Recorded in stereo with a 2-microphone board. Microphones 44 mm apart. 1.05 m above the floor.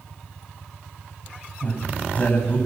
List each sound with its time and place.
1.6 s a man speaking: 35° left (ahead or behind), 6.5 m